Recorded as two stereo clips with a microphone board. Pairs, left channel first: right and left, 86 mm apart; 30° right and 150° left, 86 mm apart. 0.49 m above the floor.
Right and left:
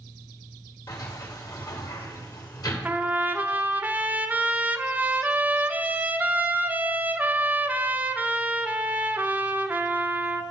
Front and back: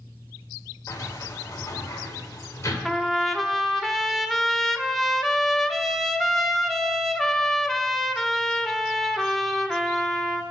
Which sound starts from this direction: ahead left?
A trumpet, at 2.9 s.